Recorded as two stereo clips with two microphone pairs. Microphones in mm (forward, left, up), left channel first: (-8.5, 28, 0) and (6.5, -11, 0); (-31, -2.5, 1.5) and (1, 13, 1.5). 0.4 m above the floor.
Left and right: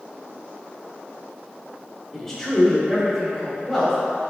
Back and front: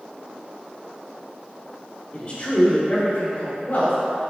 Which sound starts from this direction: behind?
A man speaking, at 2.1 s.